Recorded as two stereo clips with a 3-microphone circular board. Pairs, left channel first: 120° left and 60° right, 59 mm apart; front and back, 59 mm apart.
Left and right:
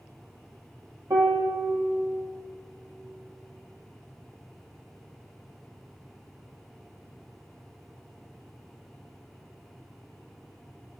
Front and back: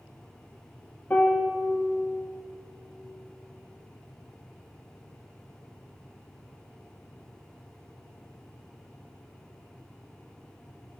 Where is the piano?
65° right, 0.8 m.